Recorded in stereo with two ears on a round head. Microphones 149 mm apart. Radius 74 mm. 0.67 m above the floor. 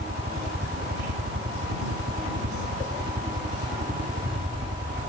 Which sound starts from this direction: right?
A helicopter, at 0.0 s.